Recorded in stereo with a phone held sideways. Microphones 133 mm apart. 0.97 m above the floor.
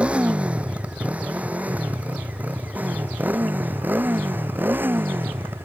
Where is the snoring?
I don't hear snoring.